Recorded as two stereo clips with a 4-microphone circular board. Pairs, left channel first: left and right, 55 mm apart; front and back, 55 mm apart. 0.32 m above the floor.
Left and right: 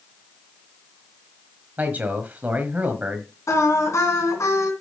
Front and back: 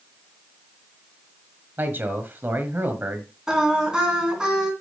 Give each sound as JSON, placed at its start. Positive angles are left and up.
{"t": 1.8, "sound": "a man speaking", "azimuth_deg": -140, "distance_m": 1.5}
{"t": 3.5, "sound": "singing", "azimuth_deg": 105, "distance_m": 3.0}